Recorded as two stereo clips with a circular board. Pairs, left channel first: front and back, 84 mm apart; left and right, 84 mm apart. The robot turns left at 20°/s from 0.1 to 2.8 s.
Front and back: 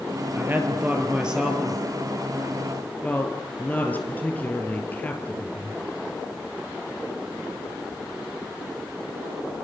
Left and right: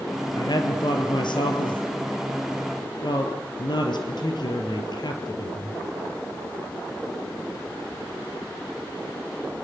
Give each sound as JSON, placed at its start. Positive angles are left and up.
{"t": 0.3, "sound": "a woman speaking", "azimuth_deg": 120, "distance_m": 3.5}